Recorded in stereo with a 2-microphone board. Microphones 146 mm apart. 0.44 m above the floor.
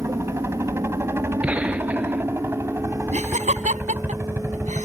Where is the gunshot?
10° right (ahead or behind).